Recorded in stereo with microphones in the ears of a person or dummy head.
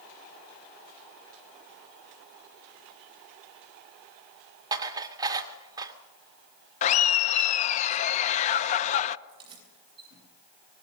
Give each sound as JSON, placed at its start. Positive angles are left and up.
{"t": 4.7, "sound": "dishes clattering", "side_deg": -20, "distance_m": 1.9}
{"t": 6.8, "sound": "laughter", "side_deg": 45, "distance_m": 1.0}
{"t": 9.3, "sound": "keys jangling", "side_deg": -25, "distance_m": 8.0}